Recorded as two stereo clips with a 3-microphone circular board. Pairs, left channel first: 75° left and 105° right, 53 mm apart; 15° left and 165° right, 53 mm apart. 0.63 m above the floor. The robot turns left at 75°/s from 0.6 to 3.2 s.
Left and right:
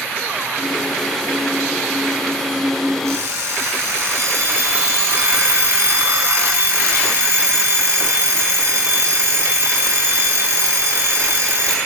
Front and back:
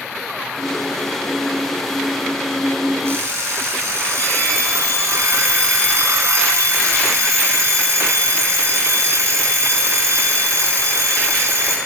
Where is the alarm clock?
120° right, 4 m; by 11.8 s 130° right, 4 m.